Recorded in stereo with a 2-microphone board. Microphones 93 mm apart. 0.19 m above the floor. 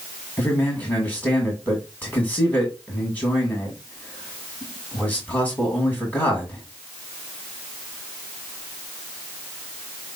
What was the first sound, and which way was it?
A man speaking, 15° left (ahead or behind).